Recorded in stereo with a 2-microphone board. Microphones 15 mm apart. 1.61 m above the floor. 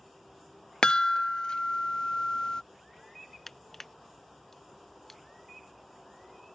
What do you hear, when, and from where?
0.8 s a chime: 50° left (ahead or behind)
3.5 s crushing: 20° left (ahead or behind)